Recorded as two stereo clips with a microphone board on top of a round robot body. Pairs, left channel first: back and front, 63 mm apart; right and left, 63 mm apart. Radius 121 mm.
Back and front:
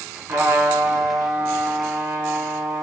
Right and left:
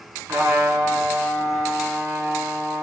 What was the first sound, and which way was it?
A trumpet, 45° left.